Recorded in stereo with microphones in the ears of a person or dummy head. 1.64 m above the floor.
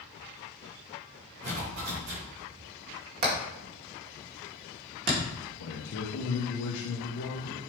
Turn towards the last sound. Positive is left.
turn(degrees=80)